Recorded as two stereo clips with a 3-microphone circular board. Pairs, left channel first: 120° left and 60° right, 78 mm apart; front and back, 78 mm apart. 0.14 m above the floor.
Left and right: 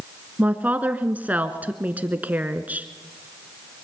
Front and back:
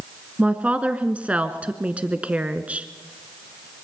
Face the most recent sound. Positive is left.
turn(degrees=-115)